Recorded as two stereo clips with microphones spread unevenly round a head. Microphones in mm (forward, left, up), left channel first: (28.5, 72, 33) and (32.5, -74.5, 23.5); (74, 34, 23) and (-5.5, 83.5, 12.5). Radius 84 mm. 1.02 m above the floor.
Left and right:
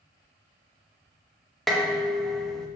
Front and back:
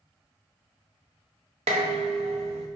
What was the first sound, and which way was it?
Dishes clattering, straight behind.